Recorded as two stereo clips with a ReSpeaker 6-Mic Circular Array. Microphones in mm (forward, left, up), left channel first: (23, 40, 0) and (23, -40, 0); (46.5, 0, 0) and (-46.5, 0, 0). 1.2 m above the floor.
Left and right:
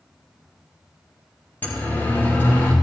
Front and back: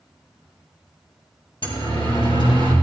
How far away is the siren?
About 3.5 m.